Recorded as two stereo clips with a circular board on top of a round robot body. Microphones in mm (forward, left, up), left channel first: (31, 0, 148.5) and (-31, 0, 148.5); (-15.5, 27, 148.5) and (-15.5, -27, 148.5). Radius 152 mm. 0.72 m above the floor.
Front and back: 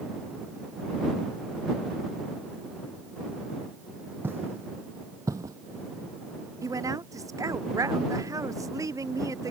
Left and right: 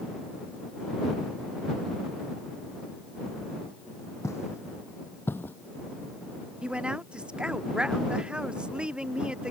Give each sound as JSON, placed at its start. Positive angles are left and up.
{"t": 4.2, "sound": "footsteps", "azimuth_deg": 125}
{"t": 6.6, "sound": "a woman speaking", "azimuth_deg": -160}